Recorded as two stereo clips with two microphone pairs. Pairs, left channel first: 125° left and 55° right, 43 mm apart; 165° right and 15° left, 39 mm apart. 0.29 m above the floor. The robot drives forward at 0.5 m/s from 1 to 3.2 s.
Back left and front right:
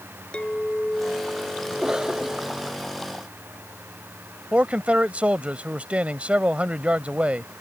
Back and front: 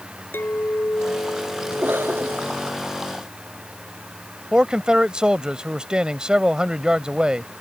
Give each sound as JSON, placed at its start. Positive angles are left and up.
{"t": 0.3, "sound": "a clink", "azimuth_deg": -170}
{"t": 1.7, "sound": "a cough", "azimuth_deg": 15}
{"t": 4.5, "sound": "a man speaking", "azimuth_deg": -30}